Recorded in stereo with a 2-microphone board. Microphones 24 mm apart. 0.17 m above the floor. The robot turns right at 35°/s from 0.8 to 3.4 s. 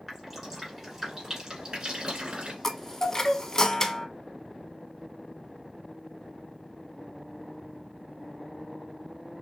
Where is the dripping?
5° right (ahead or behind), 1.7 m; by 2.5 s 50° right (ahead or behind), 1.7 m.